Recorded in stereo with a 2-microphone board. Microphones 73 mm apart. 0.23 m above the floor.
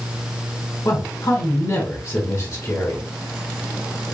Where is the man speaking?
50° left (ahead or behind), 1.4 m.